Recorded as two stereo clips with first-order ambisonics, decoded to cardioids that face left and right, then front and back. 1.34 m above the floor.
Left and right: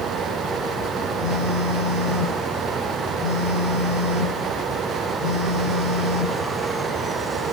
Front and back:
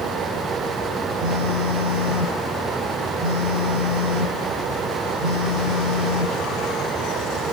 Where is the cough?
No cough in this recording.